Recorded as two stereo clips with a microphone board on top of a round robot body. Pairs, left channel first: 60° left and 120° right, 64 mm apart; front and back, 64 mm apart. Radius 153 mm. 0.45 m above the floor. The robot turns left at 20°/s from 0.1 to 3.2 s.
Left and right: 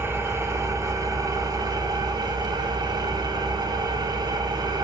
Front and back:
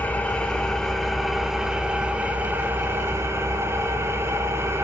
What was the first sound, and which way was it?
An engine running, 65° right.